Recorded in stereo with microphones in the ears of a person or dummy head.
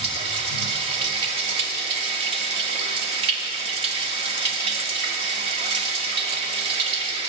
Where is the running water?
40° right (ahead or behind), 1.7 m.